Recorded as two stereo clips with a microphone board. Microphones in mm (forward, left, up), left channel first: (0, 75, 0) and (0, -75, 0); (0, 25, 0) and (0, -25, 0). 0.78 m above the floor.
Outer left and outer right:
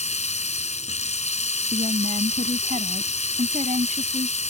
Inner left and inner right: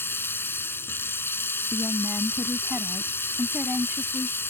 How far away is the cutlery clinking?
No cutlery clinking in this recording.